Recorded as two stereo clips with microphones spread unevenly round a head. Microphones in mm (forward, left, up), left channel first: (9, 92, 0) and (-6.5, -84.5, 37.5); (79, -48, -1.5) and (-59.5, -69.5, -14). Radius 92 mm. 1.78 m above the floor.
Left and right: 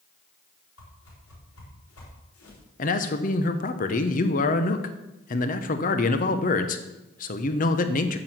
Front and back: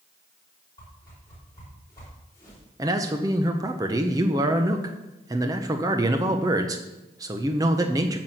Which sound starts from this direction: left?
A whoosh, at 0.8 s.